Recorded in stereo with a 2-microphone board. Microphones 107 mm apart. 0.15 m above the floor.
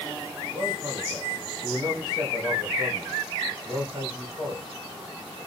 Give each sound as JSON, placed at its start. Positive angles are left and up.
{"t": 0.5, "sound": "a man speaking", "side_deg": -45, "distance_m": 2.5}